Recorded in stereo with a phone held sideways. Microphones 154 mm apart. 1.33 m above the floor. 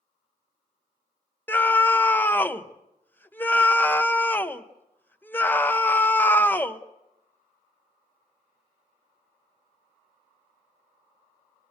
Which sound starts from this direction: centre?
A scream, at 1.5 s.